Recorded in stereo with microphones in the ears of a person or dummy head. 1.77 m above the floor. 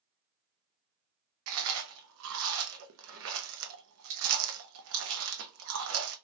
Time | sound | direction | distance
1.5 | chewing | 75° right (ahead or behind) | 0.7 m